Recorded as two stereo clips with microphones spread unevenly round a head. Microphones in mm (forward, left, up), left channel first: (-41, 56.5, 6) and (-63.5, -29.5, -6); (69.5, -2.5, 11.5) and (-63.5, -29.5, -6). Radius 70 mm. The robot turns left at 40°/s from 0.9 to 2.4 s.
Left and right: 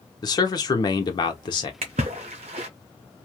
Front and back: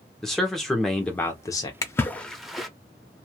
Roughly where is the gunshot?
I don't hear a gunshot.